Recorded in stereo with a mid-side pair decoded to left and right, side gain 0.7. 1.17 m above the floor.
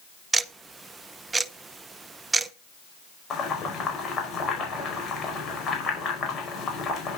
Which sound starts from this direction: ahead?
Ticking, at 0.3 s.